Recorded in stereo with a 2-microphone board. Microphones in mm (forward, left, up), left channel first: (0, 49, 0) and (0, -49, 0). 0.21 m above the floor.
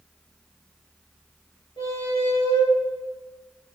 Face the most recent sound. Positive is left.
turn(degrees=60)  # may be behind; listen again after turning